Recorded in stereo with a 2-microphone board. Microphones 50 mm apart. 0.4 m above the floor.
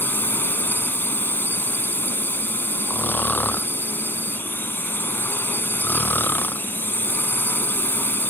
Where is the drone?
45° left (ahead or behind).